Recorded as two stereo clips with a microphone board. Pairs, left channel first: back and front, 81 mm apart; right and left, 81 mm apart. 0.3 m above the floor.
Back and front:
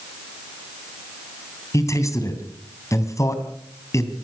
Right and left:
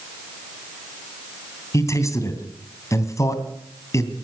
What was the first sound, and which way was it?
A man speaking, 135° right.